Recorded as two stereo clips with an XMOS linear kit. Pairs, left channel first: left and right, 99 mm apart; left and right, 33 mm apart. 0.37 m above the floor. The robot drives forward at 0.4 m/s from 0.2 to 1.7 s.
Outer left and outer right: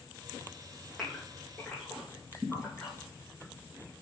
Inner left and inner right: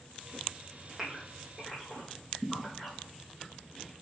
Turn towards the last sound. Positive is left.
turn(degrees=-5)  # may be behind; listen again after turning